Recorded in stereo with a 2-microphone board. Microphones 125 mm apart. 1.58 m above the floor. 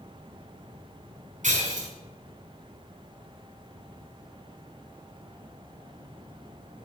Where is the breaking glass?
70° right (ahead or behind), 4.5 m.